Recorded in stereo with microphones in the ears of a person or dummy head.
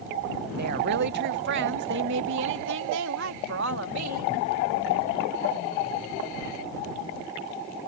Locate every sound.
0.6 s a woman speaking: 50° right (ahead or behind); by 4.3 s 75° right (ahead or behind)